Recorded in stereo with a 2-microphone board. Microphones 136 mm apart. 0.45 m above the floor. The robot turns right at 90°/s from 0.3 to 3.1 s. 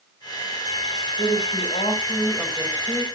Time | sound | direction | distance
1.2 | a woman speaking | 65° left | 3.5 m